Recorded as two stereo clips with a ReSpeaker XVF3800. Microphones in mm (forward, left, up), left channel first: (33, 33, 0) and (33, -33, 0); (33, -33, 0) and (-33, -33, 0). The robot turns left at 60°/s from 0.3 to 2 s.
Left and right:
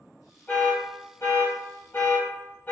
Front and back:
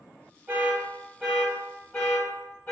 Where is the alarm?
145° left, 1.4 m; by 2.7 s 55° left, 1.4 m.